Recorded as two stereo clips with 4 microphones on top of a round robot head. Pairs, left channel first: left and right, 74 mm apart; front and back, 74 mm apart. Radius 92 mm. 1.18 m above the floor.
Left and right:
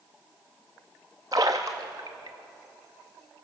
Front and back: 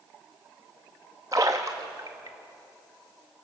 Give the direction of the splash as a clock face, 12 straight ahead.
4 o'clock.